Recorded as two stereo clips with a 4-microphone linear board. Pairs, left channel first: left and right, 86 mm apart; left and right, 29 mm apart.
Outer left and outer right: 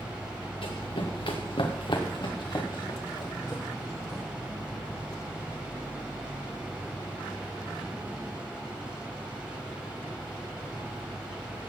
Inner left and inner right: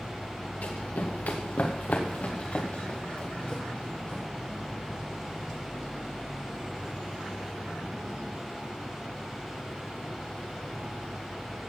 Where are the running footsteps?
75° left (ahead or behind), 2.5 m; by 4.2 s 40° left (ahead or behind), 4 m.